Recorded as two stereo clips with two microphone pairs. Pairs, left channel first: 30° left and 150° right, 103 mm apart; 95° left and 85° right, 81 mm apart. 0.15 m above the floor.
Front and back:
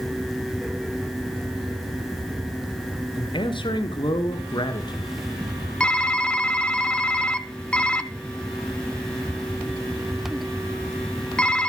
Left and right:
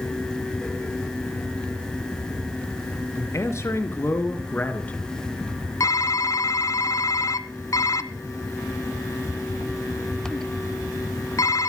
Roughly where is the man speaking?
Ahead left.